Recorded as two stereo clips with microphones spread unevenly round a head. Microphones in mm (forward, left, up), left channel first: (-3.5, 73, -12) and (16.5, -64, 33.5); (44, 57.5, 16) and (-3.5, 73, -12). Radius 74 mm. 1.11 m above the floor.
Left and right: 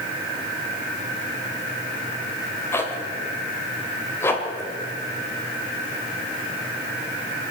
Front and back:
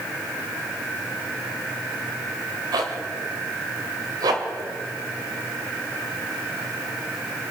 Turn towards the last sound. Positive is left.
turn(degrees=180)